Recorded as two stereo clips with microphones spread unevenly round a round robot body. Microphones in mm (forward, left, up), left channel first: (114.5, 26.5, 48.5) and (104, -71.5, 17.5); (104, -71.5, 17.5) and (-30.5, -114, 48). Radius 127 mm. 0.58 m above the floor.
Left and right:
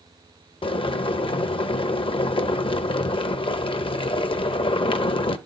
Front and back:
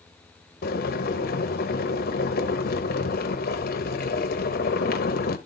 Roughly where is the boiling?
Ahead left.